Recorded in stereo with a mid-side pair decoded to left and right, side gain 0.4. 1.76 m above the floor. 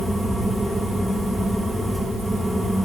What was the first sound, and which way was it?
A fan, straight ahead.